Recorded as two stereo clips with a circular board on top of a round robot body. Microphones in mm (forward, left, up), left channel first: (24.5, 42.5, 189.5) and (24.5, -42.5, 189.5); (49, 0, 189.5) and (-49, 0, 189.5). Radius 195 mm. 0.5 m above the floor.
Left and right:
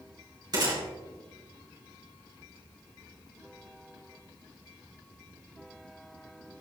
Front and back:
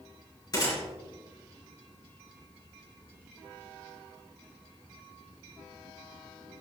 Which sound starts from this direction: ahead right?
A gunshot, at 0.5 s.